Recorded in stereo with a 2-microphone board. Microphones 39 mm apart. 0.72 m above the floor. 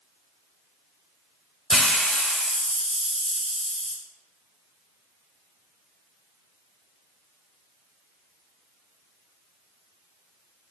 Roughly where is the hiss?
Centre.